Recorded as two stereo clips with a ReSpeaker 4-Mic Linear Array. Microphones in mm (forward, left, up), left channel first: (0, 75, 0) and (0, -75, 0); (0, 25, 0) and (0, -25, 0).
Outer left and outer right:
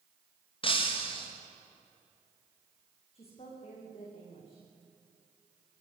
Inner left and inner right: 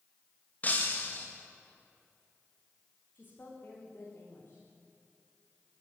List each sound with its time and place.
0.6 s breaking glass: 35° left (ahead or behind), 4.5 m
3.1 s a woman speaking: 40° left (ahead or behind), 8.5 m